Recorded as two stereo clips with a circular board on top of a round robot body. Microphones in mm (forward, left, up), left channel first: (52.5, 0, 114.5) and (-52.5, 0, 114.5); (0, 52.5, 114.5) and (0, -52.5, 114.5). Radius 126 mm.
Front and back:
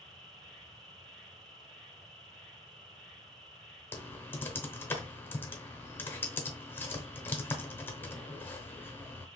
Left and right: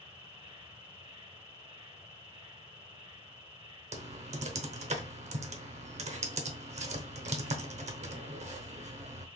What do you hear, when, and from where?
0.0 s an insect: 85° right, 2.5 m
3.9 s typing on a keyboard: 75° right, 0.8 m